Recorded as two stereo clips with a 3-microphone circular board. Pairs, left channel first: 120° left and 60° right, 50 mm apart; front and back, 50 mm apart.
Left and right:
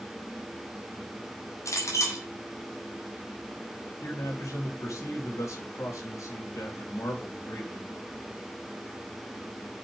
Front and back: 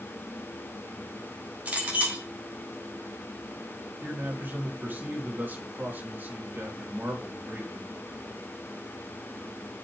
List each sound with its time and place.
1.6 s a clink: 120° left, 4 m
4.0 s a man speaking: 125° left, 3.5 m